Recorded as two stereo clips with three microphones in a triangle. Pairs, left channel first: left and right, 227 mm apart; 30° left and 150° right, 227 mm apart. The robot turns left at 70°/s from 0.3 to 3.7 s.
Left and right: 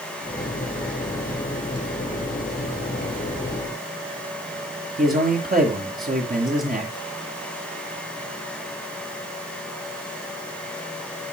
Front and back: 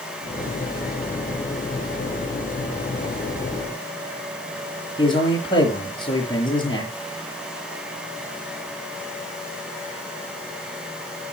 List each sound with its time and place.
5.0 s a man speaking: 40° right, 6.5 m